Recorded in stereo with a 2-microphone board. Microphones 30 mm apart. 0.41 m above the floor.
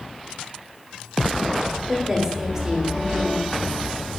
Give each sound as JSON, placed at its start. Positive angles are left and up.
{"t": 1.9, "sound": "a woman speaking", "side_deg": -20, "distance_m": 1.3}